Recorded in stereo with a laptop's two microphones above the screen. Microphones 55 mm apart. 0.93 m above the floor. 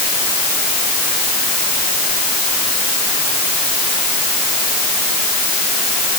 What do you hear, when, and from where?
Only background noise.